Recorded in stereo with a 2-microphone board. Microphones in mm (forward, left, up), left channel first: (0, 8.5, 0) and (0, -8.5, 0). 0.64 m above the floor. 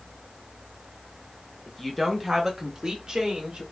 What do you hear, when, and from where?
1.7 s a woman speaking: 20° left (ahead or behind), 0.7 m; by 3.6 s 50° right (ahead or behind), 1.1 m